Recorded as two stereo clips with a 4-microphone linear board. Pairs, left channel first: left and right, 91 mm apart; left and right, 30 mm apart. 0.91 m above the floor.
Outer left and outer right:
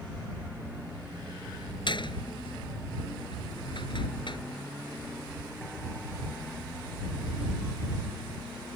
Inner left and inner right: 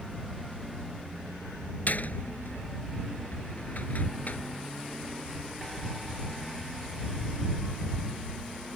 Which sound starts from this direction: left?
A door slam, at 1.9 s.